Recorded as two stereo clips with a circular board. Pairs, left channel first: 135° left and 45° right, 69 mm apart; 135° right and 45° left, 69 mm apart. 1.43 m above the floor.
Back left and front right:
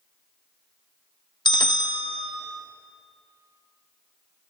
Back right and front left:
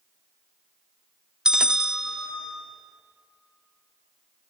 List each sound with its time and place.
1.4 s a bell: 125° left, 0.6 m